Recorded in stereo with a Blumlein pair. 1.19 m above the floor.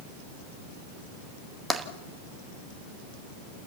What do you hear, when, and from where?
1.7 s tapping: straight ahead, 1.6 m